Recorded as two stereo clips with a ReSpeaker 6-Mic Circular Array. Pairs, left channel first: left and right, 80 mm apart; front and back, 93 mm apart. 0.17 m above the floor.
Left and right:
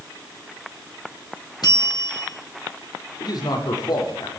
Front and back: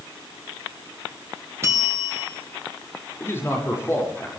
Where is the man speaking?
60° left, 7 m.